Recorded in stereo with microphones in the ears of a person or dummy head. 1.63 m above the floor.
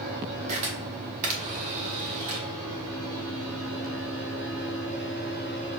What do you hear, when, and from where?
0.5 s a camera shutter: 40° right (ahead or behind), 1.1 m